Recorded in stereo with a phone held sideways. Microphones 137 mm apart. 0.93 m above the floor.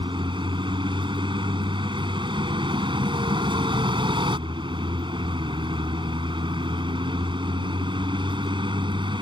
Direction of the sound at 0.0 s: 35° right (ahead or behind).